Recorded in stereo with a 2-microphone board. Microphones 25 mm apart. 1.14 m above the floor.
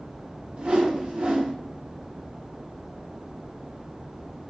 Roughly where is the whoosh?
Right.